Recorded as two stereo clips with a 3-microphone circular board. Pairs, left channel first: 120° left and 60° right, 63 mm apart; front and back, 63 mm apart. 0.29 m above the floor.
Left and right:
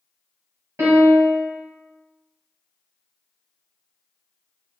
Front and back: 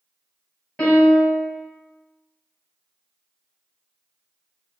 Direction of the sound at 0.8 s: 70° right.